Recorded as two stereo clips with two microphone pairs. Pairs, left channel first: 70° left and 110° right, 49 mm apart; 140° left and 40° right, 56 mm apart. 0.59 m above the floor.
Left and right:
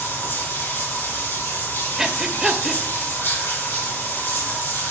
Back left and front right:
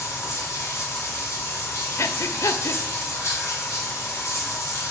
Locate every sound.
0.0 s running water: 105° left, 3 m
2.0 s breathing: 170° left, 0.6 m